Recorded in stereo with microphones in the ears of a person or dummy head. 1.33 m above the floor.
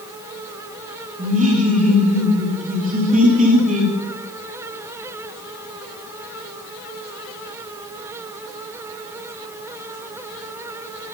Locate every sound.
1.2 s laughter: 40° right (ahead or behind), 3 m